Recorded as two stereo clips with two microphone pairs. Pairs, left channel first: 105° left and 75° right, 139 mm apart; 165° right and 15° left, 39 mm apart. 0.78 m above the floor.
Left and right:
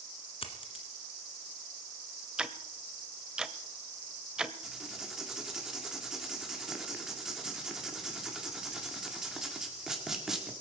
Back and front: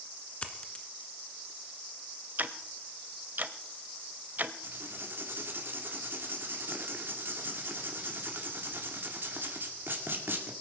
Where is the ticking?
5° left, 0.7 m.